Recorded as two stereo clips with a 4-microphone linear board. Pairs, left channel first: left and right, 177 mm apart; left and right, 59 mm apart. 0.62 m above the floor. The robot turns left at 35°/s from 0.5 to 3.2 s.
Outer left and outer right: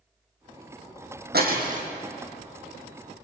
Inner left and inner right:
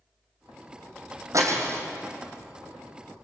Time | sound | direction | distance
1.3 | breaking glass | 65° right (ahead or behind) | 4 m